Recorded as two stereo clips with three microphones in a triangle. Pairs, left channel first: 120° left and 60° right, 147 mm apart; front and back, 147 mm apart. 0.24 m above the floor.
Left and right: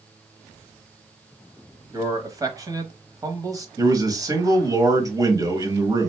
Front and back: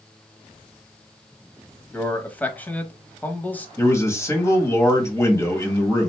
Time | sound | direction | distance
1.9 | a man speaking | 60° right | 1.0 m
3.8 | a man speaking | 45° right | 1.5 m